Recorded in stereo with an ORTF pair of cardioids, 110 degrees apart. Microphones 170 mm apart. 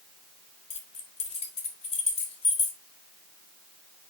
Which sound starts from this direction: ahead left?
Keys jangling, at 0.7 s.